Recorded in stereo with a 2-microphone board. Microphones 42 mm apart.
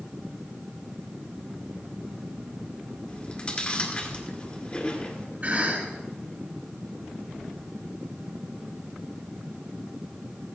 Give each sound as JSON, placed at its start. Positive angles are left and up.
{"t": 3.1, "sound": "chewing", "side_deg": 20, "distance_m": 1.8}
{"t": 5.4, "sound": "a cough", "side_deg": -45, "distance_m": 5.5}